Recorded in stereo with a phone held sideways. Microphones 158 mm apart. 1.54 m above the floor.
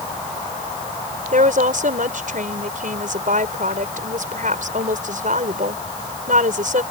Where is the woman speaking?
65° right (ahead or behind).